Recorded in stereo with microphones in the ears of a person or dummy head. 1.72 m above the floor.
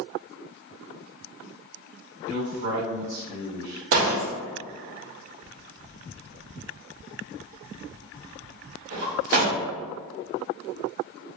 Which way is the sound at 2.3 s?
60° right (ahead or behind).